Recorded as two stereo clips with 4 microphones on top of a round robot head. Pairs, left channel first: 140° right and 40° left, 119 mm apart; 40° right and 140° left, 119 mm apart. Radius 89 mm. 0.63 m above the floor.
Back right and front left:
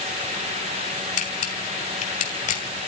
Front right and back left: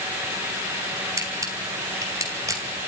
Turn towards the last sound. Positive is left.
turn(degrees=-155)